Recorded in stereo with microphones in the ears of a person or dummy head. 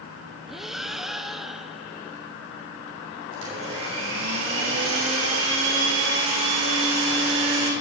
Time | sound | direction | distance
0.5 | breathing | centre (ahead or behind) | 0.7 m
3.3 | a blender | 90° right | 6.5 m